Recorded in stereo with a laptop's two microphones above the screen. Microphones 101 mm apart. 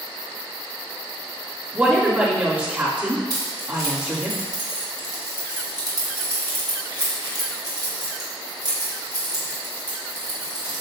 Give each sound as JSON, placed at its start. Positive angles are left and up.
{"t": 1.7, "sound": "a woman speaking", "side_deg": -15, "distance_m": 3.0}
{"t": 3.3, "sound": "keys jangling", "side_deg": -40, "distance_m": 1.7}